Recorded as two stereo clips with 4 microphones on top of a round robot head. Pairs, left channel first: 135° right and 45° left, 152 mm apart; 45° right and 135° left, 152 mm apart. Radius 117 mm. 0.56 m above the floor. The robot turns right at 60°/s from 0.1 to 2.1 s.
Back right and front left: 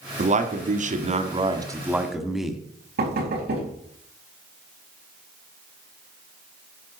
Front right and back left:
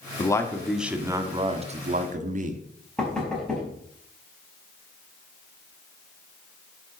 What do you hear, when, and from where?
0.2 s a man speaking: 15° left, 1.5 m; by 2.6 s 130° left, 1.5 m
3.0 s knocking: 45° left, 4 m